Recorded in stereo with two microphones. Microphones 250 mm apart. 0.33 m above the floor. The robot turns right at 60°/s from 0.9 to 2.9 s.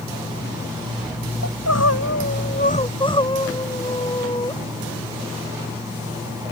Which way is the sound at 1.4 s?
75° left.